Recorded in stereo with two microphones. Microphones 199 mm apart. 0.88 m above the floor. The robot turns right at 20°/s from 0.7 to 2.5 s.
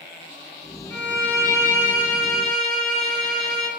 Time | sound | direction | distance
0.9 | a violin | 30° right | 2.5 m